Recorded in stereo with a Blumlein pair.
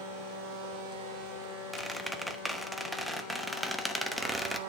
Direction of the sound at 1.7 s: Straight ahead.